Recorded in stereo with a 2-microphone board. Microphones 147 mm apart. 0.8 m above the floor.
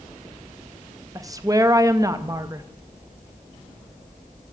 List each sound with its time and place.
1.1 s a woman speaking: 25° right (ahead or behind), 0.6 m